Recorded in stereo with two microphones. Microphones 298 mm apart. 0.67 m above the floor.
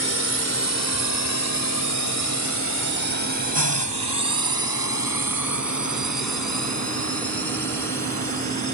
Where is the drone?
45° left (ahead or behind); by 8.7 s 65° left (ahead or behind).